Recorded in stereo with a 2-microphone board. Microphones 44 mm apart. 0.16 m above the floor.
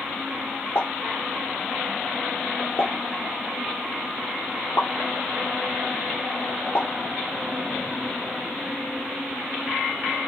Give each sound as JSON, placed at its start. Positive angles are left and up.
{"t": 0.8, "sound": "a pop", "side_deg": 70, "distance_m": 3.0}